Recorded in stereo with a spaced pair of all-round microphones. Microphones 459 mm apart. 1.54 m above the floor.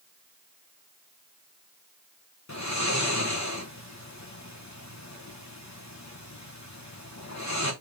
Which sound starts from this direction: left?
Snoring, at 2.5 s.